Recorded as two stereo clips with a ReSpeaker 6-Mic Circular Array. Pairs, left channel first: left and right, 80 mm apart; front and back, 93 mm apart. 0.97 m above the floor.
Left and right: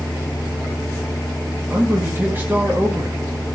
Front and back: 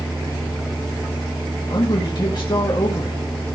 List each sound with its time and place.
1.7 s a man speaking: 30° right, 1.4 m